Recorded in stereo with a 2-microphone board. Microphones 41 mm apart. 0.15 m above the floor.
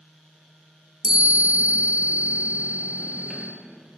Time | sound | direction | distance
1.0 | a chime | 15° right (ahead or behind) | 1.4 m